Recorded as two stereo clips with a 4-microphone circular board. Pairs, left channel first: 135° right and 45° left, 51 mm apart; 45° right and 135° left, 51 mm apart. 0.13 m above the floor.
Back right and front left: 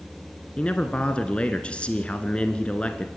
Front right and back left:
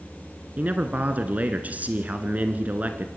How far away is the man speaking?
About 1.6 m.